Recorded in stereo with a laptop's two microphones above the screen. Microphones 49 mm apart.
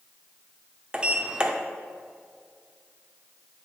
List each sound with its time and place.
0.9 s a sliding door: 20° right (ahead or behind), 0.5 m